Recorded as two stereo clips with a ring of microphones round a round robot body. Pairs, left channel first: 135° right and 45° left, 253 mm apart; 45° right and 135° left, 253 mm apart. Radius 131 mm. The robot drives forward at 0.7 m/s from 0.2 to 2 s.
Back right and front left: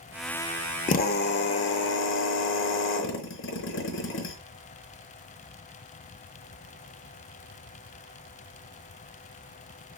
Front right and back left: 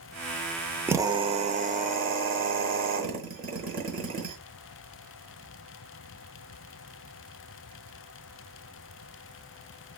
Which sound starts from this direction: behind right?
A drill, at 0.9 s.